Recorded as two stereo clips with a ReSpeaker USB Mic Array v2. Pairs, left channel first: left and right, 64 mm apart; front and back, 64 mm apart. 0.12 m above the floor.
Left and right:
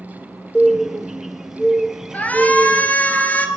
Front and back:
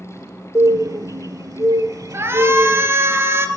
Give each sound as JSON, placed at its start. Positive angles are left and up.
{"t": 0.6, "sound": "a bird", "azimuth_deg": -170, "distance_m": 0.6}
{"t": 2.1, "sound": "a shout", "azimuth_deg": 145, "distance_m": 1.8}